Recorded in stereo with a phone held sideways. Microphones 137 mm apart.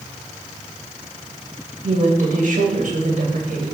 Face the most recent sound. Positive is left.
turn(degrees=-70)  # may be behind; listen again after turning